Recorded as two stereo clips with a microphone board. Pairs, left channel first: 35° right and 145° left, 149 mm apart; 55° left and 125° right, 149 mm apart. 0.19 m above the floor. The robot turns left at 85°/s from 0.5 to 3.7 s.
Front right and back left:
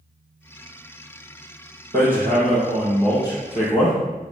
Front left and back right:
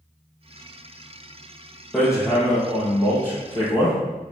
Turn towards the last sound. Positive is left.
turn(degrees=-5)